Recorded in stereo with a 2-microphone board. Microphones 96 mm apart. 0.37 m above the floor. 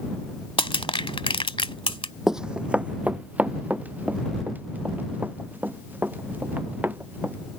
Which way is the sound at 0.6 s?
75° left (ahead or behind).